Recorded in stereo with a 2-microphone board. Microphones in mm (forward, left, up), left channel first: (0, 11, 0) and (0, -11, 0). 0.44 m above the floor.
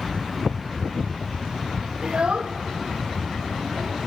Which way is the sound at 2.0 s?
50° right (ahead or behind).